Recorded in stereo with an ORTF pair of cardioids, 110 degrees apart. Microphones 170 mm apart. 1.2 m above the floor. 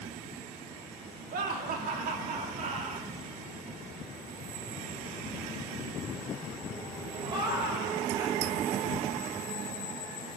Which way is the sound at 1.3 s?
60° right.